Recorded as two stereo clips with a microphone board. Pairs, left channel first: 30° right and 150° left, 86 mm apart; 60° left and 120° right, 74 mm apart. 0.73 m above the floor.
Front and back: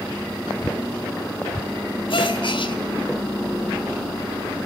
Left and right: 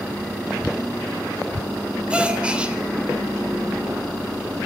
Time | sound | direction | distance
2.1 | a gasp | 45° right | 2.5 m